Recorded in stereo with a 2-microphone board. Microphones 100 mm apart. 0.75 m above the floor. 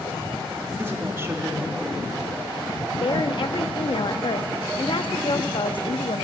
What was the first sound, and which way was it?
A woman speaking, 25° right (ahead or behind).